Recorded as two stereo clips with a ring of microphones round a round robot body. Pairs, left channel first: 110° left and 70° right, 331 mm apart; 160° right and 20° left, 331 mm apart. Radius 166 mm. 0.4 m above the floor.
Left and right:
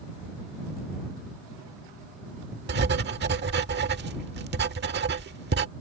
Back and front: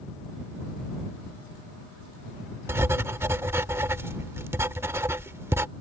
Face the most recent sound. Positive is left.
turn(degrees=-55)